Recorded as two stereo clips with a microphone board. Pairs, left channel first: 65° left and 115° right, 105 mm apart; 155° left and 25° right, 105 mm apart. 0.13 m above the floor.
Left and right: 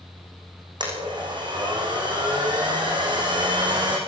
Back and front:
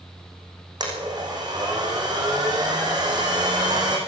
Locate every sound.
0.8 s a blender: 70° right, 7 m